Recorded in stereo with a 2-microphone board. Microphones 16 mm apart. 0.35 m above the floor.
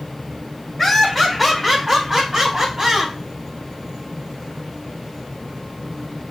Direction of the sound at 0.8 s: 5° left (ahead or behind).